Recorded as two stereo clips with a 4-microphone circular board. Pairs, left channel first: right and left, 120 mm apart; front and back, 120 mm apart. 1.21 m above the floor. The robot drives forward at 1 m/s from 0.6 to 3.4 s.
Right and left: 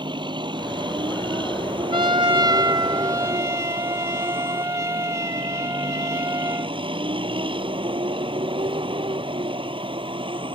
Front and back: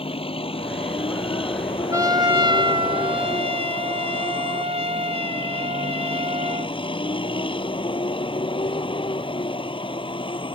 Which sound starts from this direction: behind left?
A trumpet, at 1.9 s.